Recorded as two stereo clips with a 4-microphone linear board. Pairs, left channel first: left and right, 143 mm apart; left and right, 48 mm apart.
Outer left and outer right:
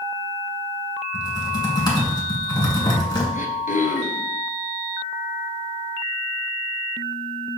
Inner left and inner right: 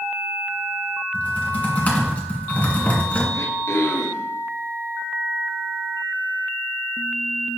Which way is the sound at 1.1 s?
30° left (ahead or behind).